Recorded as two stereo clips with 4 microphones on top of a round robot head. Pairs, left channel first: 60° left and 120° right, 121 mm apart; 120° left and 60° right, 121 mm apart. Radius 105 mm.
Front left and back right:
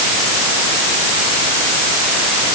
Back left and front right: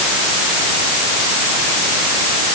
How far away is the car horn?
No car horn in this recording.